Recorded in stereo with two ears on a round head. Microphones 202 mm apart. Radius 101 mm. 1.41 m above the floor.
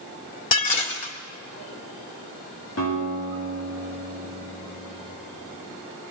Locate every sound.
0.5 s dishes clattering: 35° left (ahead or behind), 2.5 m
2.8 s a guitar: 65° left (ahead or behind), 8.5 m